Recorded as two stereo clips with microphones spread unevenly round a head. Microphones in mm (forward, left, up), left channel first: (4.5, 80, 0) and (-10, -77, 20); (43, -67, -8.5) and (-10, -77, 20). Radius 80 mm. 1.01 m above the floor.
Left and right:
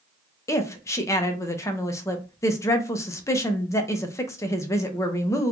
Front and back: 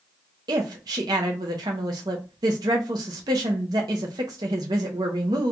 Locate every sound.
0.5 s a woman speaking: 150° left, 0.5 m